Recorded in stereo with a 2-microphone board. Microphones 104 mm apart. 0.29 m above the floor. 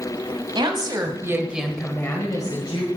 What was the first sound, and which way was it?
A woman speaking, 50° right (ahead or behind).